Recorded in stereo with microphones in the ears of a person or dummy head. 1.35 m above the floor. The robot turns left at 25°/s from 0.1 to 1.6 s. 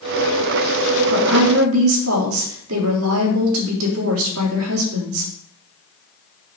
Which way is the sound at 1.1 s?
65° right (ahead or behind).